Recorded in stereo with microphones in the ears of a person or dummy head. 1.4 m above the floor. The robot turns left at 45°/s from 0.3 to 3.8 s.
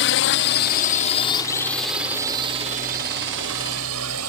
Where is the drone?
65° left (ahead or behind); by 4.3 s 80° right.